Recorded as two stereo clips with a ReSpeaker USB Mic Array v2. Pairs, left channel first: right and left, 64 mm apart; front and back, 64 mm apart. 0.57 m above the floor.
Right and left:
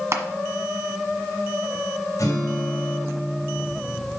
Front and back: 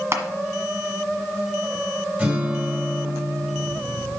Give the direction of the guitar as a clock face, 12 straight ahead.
4 o'clock.